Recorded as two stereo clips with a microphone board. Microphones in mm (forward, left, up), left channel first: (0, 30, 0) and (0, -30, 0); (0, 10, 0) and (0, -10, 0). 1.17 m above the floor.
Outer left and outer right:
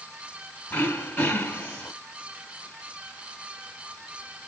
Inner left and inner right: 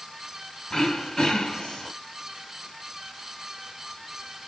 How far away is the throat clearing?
About 1.3 m.